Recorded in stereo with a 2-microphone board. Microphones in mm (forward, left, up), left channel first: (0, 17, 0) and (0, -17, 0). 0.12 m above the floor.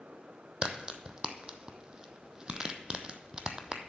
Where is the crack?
25° right (ahead or behind), 0.8 m.